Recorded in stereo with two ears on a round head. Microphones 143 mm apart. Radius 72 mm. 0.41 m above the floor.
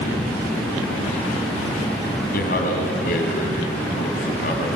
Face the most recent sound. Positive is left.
turn(degrees=65)  # may be behind; listen again after turning